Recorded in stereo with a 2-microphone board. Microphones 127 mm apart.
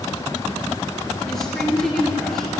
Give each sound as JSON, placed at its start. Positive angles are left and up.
{"t": 1.2, "sound": "a woman speaking", "side_deg": 5, "distance_m": 5.0}